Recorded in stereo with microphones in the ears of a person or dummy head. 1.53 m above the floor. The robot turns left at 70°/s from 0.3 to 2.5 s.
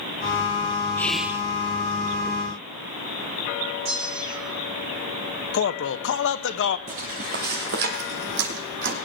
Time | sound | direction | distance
1.0 | whispering | 15° left | 1.0 m
3.9 | a bell | 60° right (ahead or behind) | 7.5 m
5.5 | a man speaking | 70° left (ahead or behind) | 0.8 m
6.9 | footsteps | 30° right (ahead or behind) | 1.8 m